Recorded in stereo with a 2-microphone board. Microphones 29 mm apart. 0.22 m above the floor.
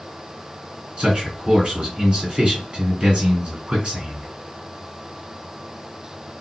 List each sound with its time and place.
1.0 s a man speaking: 45° right (ahead or behind), 2 m